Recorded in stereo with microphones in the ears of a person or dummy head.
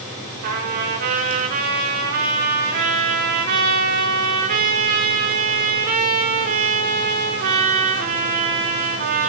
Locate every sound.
0.4 s a trumpet: 50° right (ahead or behind), 6.5 m